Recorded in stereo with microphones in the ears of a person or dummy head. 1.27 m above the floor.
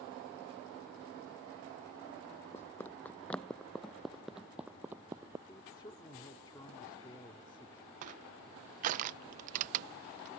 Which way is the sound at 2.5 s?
15° left (ahead or behind).